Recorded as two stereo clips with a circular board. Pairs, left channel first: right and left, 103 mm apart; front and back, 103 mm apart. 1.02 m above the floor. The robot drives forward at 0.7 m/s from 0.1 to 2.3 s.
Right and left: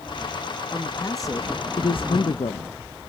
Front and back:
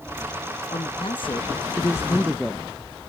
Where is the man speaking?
25° right, 1.2 m; by 2.7 s 90° right, 0.5 m.